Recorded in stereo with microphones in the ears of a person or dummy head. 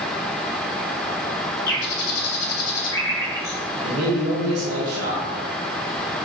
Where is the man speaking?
45° right (ahead or behind), 1.5 m.